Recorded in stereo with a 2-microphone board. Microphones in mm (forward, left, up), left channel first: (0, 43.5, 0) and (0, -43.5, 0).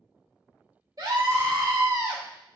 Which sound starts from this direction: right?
A scream, at 1.0 s.